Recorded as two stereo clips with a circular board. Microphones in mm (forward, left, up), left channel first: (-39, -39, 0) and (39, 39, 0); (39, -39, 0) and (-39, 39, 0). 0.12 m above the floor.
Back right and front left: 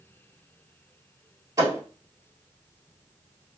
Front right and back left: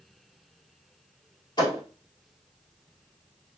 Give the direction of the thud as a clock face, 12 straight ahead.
12 o'clock.